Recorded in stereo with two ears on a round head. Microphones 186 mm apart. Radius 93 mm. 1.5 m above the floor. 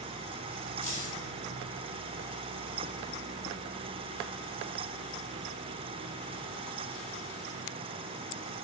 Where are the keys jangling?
35° left (ahead or behind), 6.5 m.